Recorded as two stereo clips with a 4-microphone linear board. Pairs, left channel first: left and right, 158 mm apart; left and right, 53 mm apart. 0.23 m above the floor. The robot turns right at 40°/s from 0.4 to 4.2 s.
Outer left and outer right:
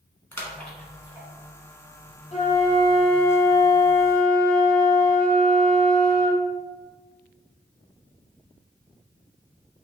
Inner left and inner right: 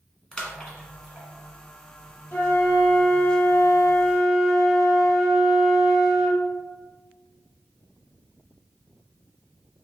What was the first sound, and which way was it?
A splash, 15° left (ahead or behind).